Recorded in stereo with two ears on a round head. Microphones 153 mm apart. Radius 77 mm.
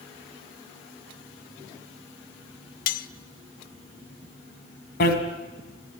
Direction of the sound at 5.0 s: 60° left (ahead or behind).